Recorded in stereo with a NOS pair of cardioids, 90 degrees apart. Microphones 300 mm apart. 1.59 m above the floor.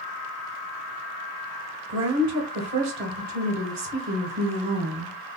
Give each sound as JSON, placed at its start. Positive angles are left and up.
{"t": 1.9, "sound": "a woman speaking", "azimuth_deg": -65, "distance_m": 1.6}